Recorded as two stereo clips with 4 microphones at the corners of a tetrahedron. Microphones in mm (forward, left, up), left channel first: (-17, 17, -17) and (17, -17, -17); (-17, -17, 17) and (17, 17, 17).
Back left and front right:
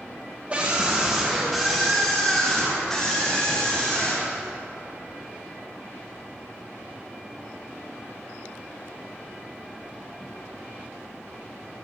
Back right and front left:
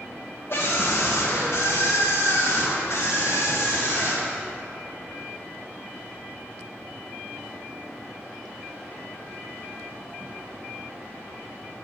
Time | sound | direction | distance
0.5 | a scream | 105° right | 0.9 m